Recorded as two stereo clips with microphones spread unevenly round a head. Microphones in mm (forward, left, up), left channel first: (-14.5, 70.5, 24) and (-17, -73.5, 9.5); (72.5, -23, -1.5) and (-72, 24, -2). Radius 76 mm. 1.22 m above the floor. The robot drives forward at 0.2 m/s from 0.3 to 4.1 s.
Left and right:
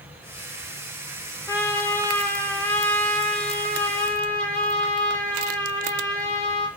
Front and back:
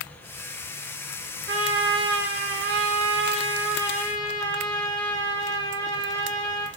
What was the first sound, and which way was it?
A trumpet, 165° left.